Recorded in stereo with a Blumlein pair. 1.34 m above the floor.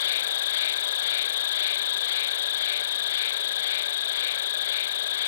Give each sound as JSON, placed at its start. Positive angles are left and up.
{"t": 0.0, "sound": "an insect", "azimuth_deg": 60}